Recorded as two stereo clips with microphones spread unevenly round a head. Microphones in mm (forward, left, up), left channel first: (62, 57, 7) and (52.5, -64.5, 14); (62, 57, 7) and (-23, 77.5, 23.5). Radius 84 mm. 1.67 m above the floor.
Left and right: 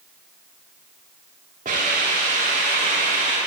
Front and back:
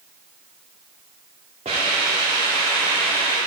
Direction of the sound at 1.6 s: 145° right.